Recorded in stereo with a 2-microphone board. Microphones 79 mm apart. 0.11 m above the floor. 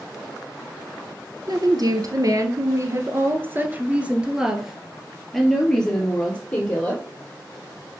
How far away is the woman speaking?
About 1.8 m.